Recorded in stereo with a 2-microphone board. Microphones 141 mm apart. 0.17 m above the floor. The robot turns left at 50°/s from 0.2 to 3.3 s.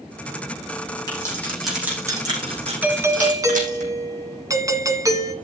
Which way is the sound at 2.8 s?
10° right (ahead or behind).